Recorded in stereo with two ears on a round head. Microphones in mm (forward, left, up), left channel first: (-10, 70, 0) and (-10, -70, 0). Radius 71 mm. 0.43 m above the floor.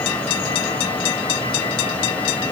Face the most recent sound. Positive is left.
No sound to turn to.